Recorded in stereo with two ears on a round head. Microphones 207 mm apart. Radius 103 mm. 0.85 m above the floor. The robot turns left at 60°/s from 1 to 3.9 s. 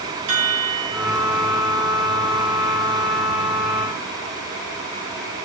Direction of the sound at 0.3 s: 85° right.